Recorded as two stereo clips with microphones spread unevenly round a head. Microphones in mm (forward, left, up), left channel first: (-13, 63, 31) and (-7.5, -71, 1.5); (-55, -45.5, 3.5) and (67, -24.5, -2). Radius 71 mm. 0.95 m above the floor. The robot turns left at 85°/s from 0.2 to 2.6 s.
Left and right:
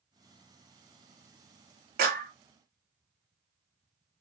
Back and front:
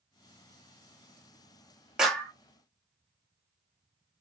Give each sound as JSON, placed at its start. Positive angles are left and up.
{"t": 2.0, "sound": "a clap", "azimuth_deg": -75, "distance_m": 1.0}